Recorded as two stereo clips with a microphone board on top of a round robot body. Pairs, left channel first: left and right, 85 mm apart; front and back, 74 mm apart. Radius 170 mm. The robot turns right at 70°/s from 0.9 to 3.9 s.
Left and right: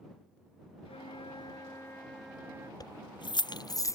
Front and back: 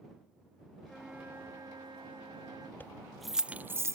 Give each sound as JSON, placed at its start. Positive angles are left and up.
{"t": 0.8, "sound": "a flute", "azimuth_deg": 85}
{"t": 2.8, "sound": "keys jangling", "azimuth_deg": 60}